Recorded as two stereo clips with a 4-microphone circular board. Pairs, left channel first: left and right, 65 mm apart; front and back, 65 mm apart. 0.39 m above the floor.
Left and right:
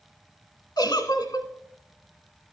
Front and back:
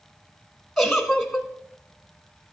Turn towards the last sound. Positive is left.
turn(degrees=90)